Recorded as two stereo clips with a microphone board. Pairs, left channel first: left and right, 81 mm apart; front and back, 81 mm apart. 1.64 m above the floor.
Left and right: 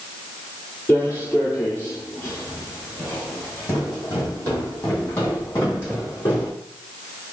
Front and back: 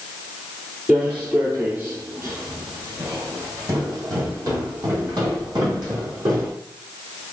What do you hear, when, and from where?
0.9 s footsteps: 115° left, 1.8 m; by 6.5 s 145° left, 4 m